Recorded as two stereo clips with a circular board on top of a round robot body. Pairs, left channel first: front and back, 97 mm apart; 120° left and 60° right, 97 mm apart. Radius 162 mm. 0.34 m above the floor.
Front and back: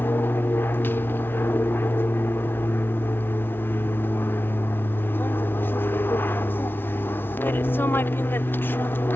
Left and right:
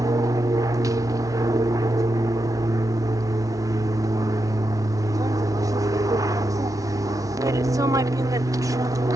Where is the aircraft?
50° right.